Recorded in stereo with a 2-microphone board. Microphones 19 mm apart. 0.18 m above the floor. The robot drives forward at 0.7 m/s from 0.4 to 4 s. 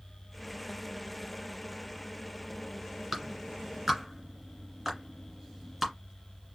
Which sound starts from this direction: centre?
A clap, at 3.1 s.